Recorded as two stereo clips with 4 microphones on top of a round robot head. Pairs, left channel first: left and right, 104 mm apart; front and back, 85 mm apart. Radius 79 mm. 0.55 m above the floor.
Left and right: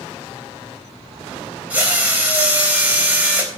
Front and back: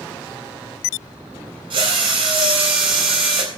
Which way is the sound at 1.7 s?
165° right.